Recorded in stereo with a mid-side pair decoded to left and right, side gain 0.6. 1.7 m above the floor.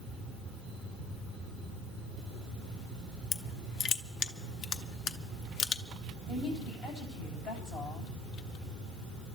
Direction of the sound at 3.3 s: 55° left.